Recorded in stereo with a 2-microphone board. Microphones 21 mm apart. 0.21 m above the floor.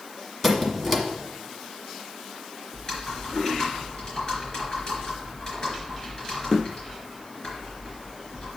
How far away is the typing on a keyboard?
About 3.5 m.